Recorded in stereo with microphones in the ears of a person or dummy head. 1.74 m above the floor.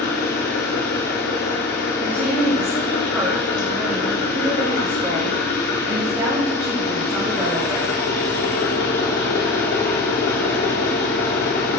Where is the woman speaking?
10° right (ahead or behind), 3.5 m.